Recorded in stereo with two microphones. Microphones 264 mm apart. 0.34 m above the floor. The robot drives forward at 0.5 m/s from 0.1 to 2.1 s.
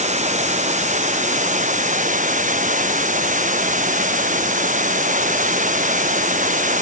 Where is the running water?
25° right (ahead or behind); by 6.8 s 30° right (ahead or behind).